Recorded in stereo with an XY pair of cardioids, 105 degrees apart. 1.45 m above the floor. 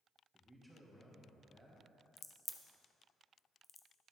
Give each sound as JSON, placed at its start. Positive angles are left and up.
{"t": 0.3, "sound": "a man speaking", "azimuth_deg": 0, "distance_m": 1.9}
{"t": 2.2, "sound": "a crack", "azimuth_deg": 30, "distance_m": 0.7}